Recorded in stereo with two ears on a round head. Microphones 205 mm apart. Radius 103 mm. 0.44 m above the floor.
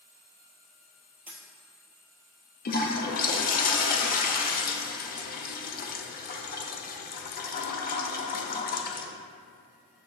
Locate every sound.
1.3 s a dropped coin: 10° right (ahead or behind), 1.3 m
2.6 s a toilet flushing: 40° left (ahead or behind), 0.7 m